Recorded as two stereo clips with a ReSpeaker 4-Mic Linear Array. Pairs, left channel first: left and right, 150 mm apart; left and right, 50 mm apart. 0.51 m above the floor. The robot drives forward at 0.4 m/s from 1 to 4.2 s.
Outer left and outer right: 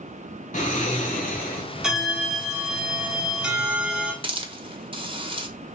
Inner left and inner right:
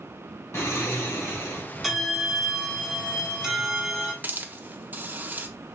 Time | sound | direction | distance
0.5 | snoring | 60° left (ahead or behind) | 1.8 m
1.8 | a bell | 5° right (ahead or behind) | 0.9 m
4.2 | a hiss | 35° right (ahead or behind) | 0.7 m